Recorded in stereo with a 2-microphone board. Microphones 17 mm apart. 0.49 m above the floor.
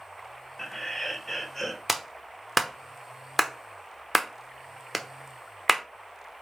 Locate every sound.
0.6 s laughter: 25° left (ahead or behind), 2.0 m; by 1.8 s 10° left (ahead or behind), 1.7 m
1.9 s a clap: 5° right (ahead or behind), 0.8 m